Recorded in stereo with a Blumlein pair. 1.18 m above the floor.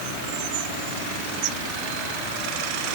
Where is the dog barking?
I don't hear a dog barking.